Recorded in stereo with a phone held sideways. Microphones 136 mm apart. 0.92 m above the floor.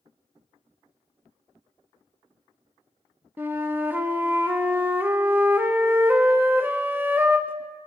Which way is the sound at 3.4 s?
15° right (ahead or behind).